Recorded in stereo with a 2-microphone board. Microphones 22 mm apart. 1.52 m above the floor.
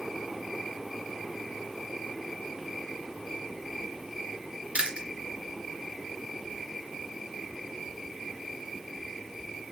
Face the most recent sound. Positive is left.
turn(degrees=-75)  # may be behind; listen again after turning